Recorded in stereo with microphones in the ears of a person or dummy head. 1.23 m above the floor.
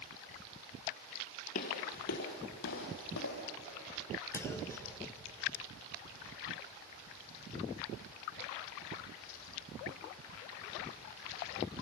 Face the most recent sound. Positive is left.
turn(degrees=15)  # may be behind; listen again after turning